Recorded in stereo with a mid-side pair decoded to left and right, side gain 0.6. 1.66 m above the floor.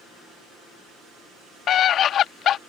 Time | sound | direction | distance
1.7 | a scream | 50° left | ?